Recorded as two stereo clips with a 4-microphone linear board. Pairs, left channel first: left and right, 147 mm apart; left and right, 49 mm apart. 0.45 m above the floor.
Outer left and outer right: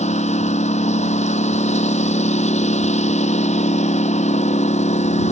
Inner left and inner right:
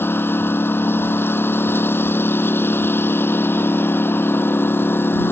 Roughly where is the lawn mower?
Left.